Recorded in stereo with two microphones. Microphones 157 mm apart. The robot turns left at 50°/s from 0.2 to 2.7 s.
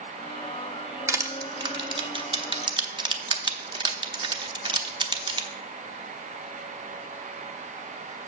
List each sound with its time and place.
1.1 s crushing: 20° right (ahead or behind), 0.8 m; by 5.5 s 30° right (ahead or behind), 0.8 m